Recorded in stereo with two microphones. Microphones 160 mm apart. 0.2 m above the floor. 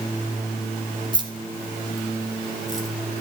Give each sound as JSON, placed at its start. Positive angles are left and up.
{"t": 1.1, "sound": "keys jangling", "side_deg": -25, "distance_m": 1.5}